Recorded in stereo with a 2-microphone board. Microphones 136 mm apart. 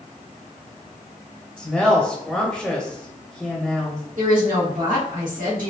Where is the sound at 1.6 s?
Centre (ahead or behind), 1.0 m.